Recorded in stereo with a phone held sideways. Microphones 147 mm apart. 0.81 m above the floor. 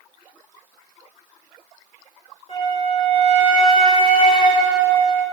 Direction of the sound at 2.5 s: 40° left (ahead or behind).